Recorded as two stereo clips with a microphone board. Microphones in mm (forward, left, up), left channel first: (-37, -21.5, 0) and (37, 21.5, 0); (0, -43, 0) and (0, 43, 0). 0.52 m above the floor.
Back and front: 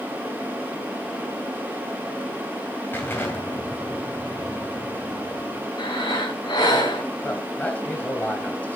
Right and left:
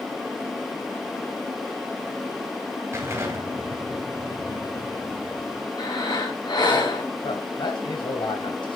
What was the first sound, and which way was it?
An explosion, 145° left.